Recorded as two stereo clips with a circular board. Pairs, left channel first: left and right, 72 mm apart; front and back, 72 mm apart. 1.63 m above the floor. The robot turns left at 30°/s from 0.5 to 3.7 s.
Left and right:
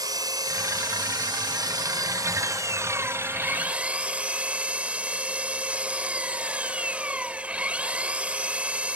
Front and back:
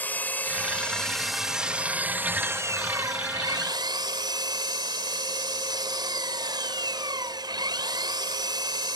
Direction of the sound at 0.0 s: 65° right.